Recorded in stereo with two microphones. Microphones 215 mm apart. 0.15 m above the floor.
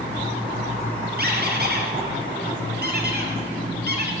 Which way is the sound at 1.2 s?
50° right (ahead or behind).